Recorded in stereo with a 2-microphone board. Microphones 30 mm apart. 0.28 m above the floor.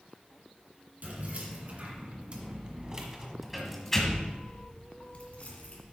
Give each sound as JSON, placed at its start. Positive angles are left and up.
{"t": 1.0, "sound": "keys jangling", "side_deg": -55, "distance_m": 2.5}